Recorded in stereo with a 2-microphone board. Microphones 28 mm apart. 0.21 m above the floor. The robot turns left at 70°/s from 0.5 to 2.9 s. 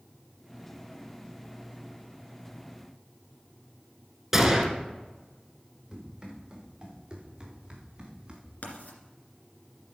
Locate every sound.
4.3 s a gunshot: 15° right (ahead or behind), 1.3 m
5.9 s running footsteps: 15° right (ahead or behind), 5 m; by 8.5 s 25° right (ahead or behind), 2.5 m
8.6 s writing: 65° left (ahead or behind), 2 m